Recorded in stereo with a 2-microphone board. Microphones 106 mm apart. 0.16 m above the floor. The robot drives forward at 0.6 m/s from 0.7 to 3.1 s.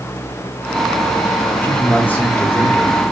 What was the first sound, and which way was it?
A man speaking, 15° left (ahead or behind).